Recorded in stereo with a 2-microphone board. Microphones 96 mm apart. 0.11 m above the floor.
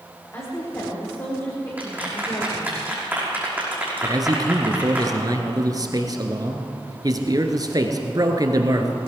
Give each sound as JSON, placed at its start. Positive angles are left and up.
{"t": 0.3, "sound": "a woman speaking", "side_deg": 30, "distance_m": 7.0}
{"t": 1.8, "sound": "a clap", "side_deg": -15, "distance_m": 5.5}
{"t": 4.0, "sound": "a man speaking", "side_deg": -40, "distance_m": 1.6}